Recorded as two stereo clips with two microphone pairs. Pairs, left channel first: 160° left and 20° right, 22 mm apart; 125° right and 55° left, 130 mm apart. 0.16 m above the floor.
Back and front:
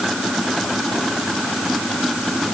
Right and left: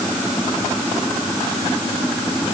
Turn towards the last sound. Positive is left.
No sound to turn to.